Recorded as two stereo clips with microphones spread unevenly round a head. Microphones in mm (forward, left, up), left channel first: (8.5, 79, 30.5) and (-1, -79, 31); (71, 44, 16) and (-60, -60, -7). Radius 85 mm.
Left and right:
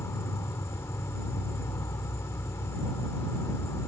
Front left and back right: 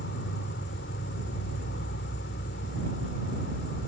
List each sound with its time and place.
0.0 s an insect: 10° left